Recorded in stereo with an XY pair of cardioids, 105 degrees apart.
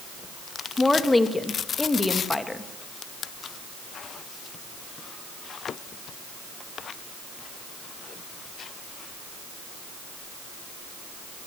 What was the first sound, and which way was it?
A woman speaking, 15° left.